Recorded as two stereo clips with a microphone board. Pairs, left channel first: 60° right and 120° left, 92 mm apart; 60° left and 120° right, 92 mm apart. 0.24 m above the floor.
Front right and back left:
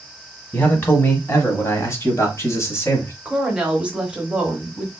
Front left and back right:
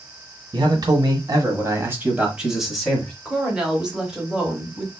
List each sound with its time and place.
0.5 s a man speaking: 125° right, 1.4 m; by 3.1 s 15° right, 1.2 m
3.2 s a woman speaking: 175° left, 1.1 m